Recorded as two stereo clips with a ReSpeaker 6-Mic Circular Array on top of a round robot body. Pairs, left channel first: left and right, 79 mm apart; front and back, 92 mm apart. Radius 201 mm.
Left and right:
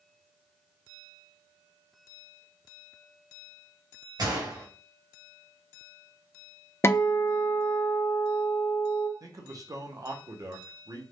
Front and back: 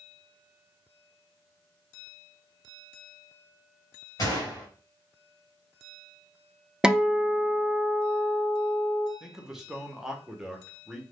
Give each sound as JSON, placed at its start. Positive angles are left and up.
{"t": 4.2, "sound": "a gunshot", "azimuth_deg": -50, "distance_m": 1.6}
{"t": 6.8, "sound": "a guitar", "azimuth_deg": 105, "distance_m": 0.6}
{"t": 9.2, "sound": "a man speaking", "azimuth_deg": -100, "distance_m": 0.9}